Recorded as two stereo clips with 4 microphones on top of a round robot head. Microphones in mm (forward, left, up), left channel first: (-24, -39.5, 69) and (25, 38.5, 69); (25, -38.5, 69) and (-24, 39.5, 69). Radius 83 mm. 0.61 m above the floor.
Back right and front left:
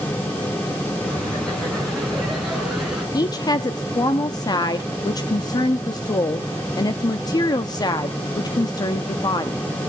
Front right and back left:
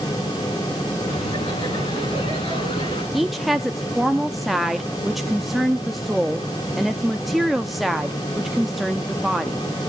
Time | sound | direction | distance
1.0 | laughter | 45° right | 7.5 m
3.1 | a woman speaking | 150° right | 0.8 m